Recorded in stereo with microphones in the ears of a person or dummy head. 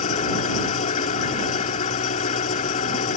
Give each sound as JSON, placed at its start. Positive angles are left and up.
{"t": 0.0, "sound": "an engine running", "side_deg": 40}